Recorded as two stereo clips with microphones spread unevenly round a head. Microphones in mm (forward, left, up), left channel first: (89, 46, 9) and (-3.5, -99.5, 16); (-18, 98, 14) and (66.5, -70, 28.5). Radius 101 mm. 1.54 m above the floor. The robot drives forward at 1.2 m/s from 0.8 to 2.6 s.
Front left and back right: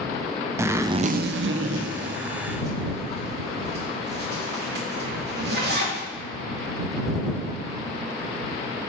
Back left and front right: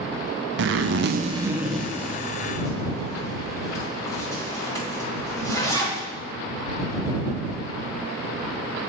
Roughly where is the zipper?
Ahead right.